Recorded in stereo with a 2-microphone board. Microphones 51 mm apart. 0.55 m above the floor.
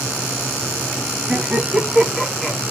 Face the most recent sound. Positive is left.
turn(degrees=5)  # may be behind; listen again after turning